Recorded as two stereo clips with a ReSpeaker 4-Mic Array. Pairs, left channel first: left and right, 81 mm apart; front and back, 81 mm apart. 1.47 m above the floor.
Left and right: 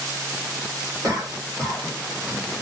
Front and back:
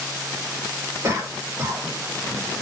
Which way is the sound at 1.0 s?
135° right.